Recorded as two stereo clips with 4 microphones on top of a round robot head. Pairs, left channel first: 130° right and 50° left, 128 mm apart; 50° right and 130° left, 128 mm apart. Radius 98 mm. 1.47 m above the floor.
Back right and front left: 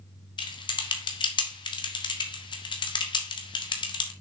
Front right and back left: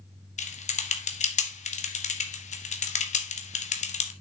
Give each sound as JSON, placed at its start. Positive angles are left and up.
{"t": 0.4, "sound": "typing on a keyboard", "azimuth_deg": -75, "distance_m": 1.7}